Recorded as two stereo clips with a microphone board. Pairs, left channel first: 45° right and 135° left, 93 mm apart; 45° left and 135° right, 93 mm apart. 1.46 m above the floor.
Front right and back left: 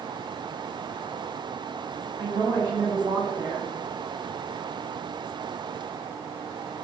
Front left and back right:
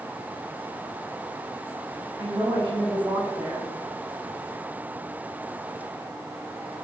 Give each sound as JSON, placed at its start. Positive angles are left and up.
{"t": 2.2, "sound": "a woman speaking", "azimuth_deg": 180, "distance_m": 1.9}